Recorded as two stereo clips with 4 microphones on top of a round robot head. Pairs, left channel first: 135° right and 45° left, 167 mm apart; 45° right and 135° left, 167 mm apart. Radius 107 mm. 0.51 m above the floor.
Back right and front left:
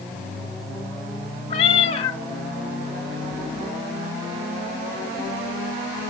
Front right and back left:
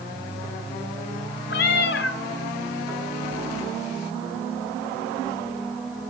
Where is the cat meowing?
75° right, 0.7 m.